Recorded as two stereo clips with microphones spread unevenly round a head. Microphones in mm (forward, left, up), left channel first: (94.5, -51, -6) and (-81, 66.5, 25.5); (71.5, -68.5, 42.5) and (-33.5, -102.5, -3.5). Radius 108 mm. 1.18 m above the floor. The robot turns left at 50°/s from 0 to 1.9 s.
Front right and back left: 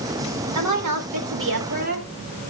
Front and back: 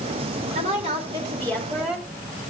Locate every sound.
0.6 s a woman speaking: 160° left, 4 m; by 2.0 s 95° left, 4 m